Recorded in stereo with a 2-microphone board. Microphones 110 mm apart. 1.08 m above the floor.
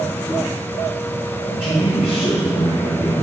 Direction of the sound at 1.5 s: 50° left (ahead or behind).